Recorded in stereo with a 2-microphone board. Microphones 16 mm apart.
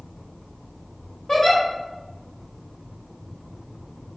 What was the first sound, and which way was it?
A giggle, 35° left (ahead or behind).